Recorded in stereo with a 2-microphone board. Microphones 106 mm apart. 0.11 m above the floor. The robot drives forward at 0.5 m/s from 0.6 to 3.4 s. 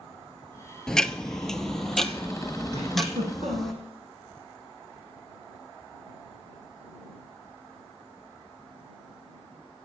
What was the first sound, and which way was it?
Ticking, 5° left (ahead or behind).